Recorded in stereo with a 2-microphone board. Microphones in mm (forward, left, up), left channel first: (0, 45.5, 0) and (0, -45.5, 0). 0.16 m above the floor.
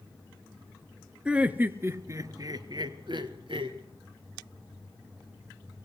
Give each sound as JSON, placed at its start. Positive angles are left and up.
{"t": 1.2, "sound": "laughter", "side_deg": -10, "distance_m": 1.9}